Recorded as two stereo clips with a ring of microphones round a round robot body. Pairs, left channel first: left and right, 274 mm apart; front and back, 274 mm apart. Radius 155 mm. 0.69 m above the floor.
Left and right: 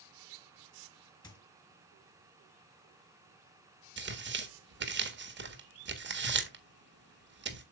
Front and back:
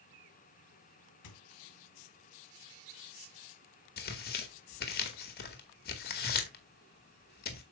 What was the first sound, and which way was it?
A squeak, 15° left.